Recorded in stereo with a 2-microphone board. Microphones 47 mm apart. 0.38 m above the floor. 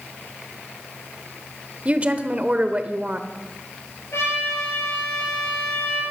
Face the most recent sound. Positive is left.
turn(degrees=85)